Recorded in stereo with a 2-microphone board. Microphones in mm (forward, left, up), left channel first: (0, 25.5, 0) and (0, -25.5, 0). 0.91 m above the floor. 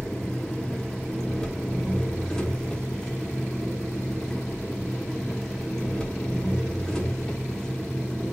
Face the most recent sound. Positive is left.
turn(degrees=15)  # may be behind; listen again after turning